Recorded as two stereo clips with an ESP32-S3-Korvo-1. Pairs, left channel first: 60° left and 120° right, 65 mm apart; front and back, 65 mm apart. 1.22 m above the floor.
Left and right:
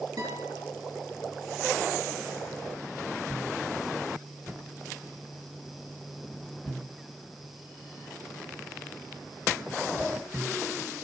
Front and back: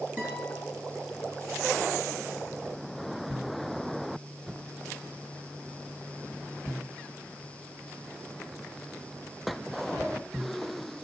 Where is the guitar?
120° right, 7.5 m.